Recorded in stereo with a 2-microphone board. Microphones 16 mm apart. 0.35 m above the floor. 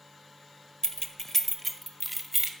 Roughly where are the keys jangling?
Left.